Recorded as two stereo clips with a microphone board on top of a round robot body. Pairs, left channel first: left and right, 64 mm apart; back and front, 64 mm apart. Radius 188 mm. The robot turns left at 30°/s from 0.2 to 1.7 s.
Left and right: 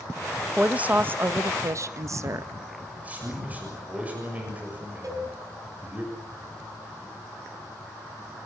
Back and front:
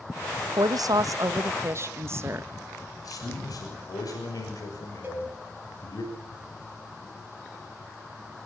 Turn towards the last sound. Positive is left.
turn(degrees=-55)